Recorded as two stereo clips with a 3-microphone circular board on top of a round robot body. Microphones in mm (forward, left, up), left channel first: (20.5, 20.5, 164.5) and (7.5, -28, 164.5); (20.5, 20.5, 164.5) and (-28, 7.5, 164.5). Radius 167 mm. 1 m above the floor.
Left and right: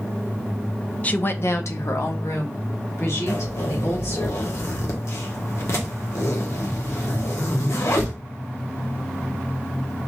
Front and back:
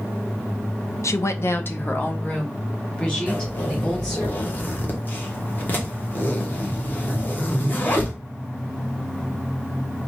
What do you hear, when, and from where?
1.0 s a woman speaking: 10° left, 0.7 m; by 4.3 s 90° left, 3.5 m
3.3 s a zipper: 65° left, 1.5 m